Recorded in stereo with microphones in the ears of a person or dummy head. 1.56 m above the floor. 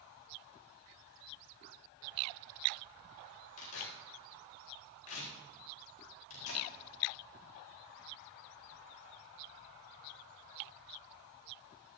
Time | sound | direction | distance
3.6 | tearing paper | 90° left | 4 m